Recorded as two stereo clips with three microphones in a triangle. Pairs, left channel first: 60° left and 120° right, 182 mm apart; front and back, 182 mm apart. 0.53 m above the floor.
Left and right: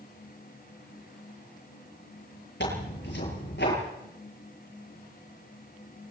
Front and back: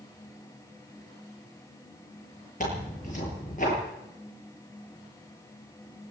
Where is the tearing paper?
45° left, 9 m.